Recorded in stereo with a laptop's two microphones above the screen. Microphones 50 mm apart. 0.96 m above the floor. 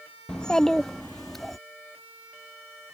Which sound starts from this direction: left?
A child speaking, at 0.3 s.